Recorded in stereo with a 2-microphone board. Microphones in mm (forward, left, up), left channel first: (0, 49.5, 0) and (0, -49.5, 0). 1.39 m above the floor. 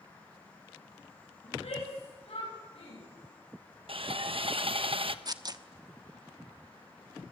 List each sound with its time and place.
1.4 s a shout: 75° left (ahead or behind), 8.5 m; by 3.0 s 80° left, 10 m
3.9 s sawing: 65° right (ahead or behind), 1.1 m
5.2 s tearing paper: 40° right (ahead or behind), 1.1 m